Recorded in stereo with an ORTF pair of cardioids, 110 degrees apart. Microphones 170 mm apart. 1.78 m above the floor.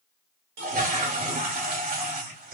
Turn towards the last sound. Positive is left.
turn(degrees=-60)